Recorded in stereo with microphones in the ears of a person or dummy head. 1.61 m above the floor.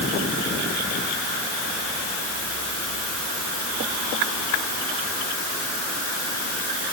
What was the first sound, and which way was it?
Only background noise.